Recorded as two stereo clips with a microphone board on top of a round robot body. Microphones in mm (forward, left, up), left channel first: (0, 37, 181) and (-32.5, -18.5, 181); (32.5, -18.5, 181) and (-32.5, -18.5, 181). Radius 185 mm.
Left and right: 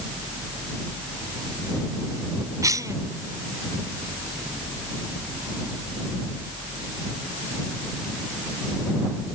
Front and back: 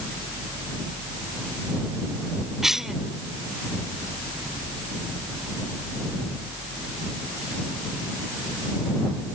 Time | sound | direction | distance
2.6 | a cough | 100° right | ?